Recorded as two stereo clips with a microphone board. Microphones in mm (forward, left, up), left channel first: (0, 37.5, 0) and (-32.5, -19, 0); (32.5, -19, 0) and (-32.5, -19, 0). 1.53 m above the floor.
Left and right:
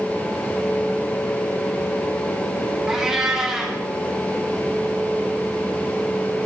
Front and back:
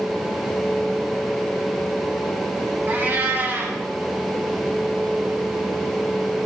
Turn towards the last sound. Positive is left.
turn(degrees=165)